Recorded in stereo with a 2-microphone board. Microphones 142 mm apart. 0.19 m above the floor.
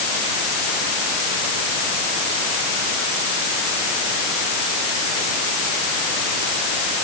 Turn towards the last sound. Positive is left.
No sound to turn to.